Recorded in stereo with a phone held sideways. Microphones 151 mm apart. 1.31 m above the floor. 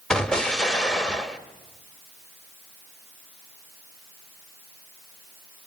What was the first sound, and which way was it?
An explosion, 5° left (ahead or behind).